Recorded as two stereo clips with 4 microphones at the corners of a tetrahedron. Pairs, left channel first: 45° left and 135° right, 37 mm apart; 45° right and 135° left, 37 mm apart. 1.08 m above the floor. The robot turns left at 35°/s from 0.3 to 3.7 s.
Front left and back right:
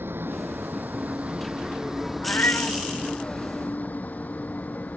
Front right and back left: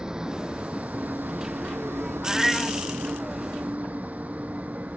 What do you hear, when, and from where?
0.0 s a vehicle: 155° right; by 5.0 s 85° left
2.2 s a cat meowing: 55° left; by 2.8 s 35° left